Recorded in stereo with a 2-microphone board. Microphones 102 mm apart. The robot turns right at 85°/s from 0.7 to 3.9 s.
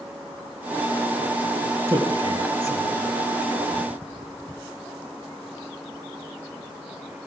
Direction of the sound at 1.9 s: 25° right (ahead or behind).